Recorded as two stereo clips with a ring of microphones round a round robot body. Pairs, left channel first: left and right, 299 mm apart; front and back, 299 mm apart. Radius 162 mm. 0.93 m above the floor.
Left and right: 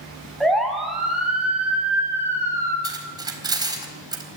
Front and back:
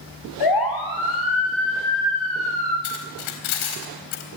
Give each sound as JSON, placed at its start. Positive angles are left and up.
{"t": 0.4, "sound": "a siren", "azimuth_deg": 0, "distance_m": 5.5}
{"t": 2.8, "sound": "cutlery clinking", "azimuth_deg": -15, "distance_m": 3.5}